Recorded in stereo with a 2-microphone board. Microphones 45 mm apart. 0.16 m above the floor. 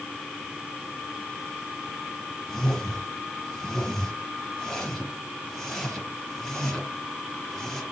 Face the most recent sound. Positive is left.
turn(degrees=5)  # may be behind; listen again after turning